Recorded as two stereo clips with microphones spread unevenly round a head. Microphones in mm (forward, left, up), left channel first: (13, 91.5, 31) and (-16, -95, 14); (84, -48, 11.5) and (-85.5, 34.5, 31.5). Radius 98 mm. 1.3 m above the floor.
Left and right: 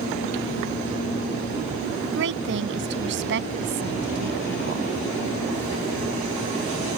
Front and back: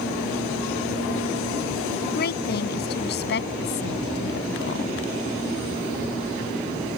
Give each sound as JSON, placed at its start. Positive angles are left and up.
{"t": 2.0, "sound": "a woman speaking", "azimuth_deg": -70}